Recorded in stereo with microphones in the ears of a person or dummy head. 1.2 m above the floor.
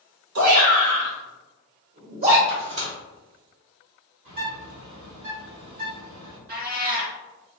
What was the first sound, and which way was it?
A shout, 70° right (ahead or behind).